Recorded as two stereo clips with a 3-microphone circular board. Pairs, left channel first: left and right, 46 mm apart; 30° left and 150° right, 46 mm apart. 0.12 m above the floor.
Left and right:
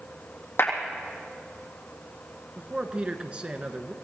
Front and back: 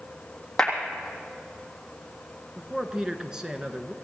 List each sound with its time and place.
0.6 s a clap: 110° left, 3.5 m
2.6 s a man speaking: 95° right, 1.1 m